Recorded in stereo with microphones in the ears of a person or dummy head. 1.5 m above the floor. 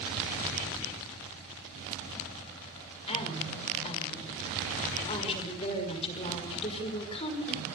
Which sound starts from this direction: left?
A woman speaking, at 3.1 s.